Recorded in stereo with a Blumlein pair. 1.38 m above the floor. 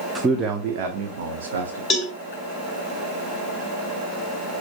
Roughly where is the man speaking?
Ahead.